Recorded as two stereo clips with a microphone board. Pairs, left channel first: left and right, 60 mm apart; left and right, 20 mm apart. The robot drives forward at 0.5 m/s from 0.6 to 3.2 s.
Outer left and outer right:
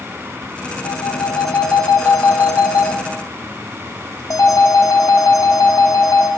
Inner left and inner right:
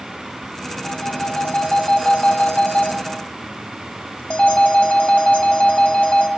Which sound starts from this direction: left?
A phone ringing, at 0.8 s.